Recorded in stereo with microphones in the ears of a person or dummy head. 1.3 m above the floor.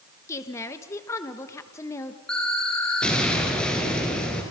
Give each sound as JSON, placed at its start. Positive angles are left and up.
{"t": 0.3, "sound": "a woman speaking", "side_deg": 15, "distance_m": 1.3}
{"t": 2.3, "sound": "an explosion", "side_deg": 5, "distance_m": 4.0}